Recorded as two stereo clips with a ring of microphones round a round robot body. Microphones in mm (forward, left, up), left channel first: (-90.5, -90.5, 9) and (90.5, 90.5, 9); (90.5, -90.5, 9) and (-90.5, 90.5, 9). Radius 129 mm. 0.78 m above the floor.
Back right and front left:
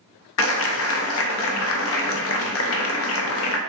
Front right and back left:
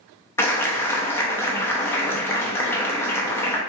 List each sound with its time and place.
0.4 s a clap: 125° right, 0.5 m